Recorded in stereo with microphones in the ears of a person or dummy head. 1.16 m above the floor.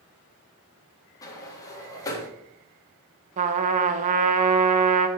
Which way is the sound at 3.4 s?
35° right (ahead or behind).